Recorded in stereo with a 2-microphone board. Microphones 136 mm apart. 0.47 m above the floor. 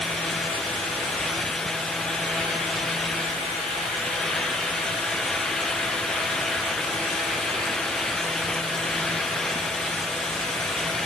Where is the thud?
No thud in this recording.